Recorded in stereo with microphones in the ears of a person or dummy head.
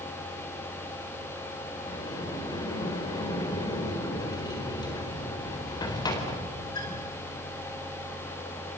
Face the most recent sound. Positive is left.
turn(degrees=25)  # may be behind; listen again after turning